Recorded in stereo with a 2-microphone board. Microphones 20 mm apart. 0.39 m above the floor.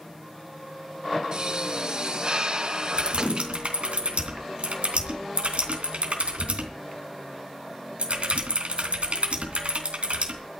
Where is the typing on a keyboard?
70° right (ahead or behind), 3 m.